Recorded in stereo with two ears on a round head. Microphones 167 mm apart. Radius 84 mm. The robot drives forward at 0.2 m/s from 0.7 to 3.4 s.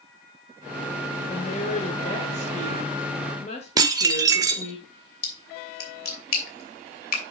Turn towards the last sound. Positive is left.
turn(degrees=55)  # may be behind; listen again after turning